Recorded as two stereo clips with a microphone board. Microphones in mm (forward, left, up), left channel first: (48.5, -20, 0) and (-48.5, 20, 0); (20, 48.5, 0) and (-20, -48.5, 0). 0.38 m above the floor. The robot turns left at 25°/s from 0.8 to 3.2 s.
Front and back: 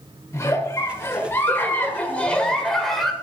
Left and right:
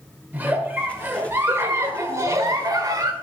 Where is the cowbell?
No cowbell in this recording.